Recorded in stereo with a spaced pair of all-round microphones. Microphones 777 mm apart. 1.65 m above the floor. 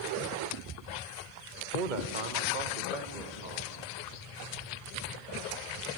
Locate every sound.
1.7 s a man speaking: 85° right, 1.4 m; by 3.8 s 75° right (ahead or behind), 4 m